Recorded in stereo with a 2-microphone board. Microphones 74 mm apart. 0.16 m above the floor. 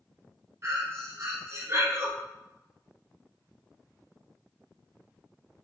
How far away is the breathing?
About 0.8 m.